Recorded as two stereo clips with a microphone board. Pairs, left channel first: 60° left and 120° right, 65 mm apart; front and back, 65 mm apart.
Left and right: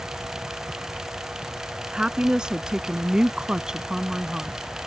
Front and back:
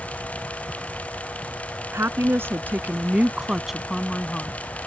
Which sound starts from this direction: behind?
A woman speaking, at 1.9 s.